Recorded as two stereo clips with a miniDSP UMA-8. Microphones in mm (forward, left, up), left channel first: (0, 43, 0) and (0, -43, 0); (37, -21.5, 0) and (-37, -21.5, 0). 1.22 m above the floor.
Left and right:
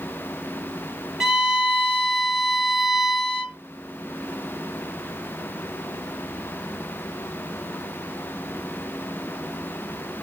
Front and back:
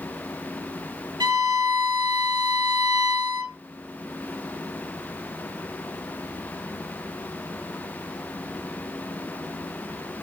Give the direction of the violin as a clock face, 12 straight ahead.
6 o'clock.